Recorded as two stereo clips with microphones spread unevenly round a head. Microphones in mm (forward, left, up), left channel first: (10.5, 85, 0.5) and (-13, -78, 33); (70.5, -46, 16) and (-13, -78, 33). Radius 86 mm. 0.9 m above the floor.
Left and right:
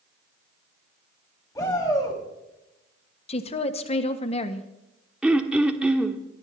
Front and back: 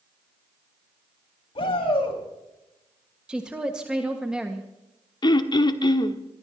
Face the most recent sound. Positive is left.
turn(degrees=-15)